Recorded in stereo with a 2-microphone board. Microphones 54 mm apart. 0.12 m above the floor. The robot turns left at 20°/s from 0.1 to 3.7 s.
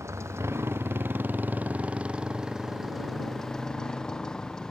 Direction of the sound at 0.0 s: 120° right.